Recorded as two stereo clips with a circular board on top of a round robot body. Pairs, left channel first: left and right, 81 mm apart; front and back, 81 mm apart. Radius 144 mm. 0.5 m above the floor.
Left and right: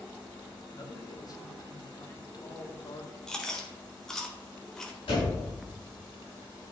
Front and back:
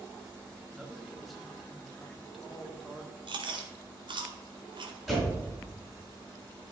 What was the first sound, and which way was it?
A man speaking, 90° left.